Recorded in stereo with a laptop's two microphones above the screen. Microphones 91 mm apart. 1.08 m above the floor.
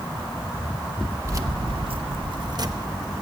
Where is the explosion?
No explosion in this recording.